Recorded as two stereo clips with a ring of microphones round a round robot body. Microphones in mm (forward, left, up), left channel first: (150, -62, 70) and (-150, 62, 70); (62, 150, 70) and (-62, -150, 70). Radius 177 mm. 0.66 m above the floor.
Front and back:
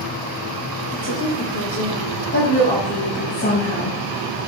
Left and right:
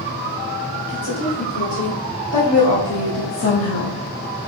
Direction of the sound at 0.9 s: 30° left.